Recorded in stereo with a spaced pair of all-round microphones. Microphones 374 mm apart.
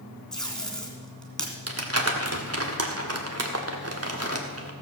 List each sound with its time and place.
0.3 s tape being pulled: centre (ahead or behind), 2.5 m
1.7 s crumpling: 40° right (ahead or behind), 1.5 m